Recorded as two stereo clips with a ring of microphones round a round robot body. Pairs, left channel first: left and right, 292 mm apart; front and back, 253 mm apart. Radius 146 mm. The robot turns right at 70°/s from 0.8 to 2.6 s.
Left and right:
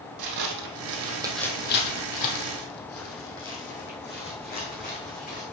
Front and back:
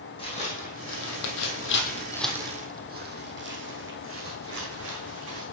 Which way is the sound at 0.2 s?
70° right.